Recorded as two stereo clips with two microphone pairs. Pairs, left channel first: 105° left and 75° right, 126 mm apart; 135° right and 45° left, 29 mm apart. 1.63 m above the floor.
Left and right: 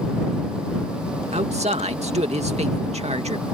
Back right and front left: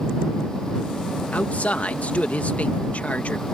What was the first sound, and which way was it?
A man speaking, 100° right.